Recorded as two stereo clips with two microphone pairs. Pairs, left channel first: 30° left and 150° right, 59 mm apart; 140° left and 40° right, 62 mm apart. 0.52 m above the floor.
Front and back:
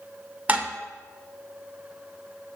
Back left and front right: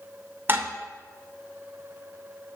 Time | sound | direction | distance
0.5 | dishes clattering | 90° right | 0.8 m